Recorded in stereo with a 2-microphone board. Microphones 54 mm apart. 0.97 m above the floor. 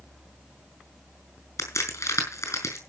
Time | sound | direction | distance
1.6 | a crack | 70° left (ahead or behind) | 5.5 m